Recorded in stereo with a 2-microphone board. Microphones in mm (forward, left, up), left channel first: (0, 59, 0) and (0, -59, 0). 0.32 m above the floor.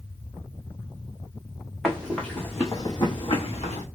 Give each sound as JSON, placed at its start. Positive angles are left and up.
{"t": 1.8, "sound": "running footsteps", "side_deg": 5, "distance_m": 1.1}